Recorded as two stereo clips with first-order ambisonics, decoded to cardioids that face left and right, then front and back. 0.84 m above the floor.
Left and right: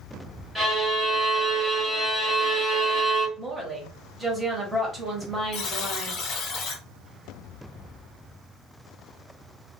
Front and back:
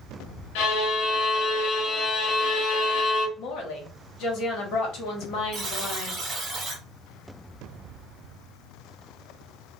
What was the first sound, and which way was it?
A violin, 5° right.